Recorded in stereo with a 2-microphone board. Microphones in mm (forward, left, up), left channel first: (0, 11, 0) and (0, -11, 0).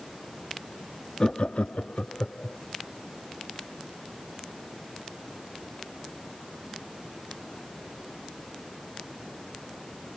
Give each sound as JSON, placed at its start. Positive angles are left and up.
{"t": 1.2, "sound": "laughter", "side_deg": 30}